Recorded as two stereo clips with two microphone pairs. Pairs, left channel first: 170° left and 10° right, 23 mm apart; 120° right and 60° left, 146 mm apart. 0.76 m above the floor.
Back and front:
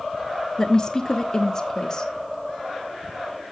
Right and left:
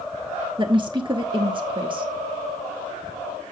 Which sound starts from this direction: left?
A woman speaking, at 0.6 s.